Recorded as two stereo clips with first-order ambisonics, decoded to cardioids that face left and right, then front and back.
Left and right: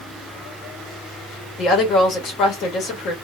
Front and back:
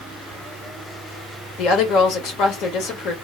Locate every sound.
1.6 s a woman speaking: 40° left, 1.1 m